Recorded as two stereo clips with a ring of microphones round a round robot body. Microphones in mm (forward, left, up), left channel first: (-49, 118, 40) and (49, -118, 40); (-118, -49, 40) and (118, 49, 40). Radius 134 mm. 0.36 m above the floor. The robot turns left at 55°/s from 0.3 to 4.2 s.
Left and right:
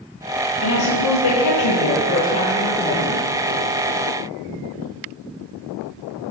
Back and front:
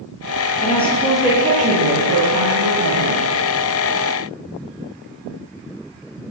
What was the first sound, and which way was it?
A woman speaking, 140° left.